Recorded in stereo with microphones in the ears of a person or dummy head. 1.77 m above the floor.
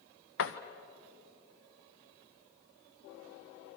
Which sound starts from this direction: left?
A door slam, at 0.4 s.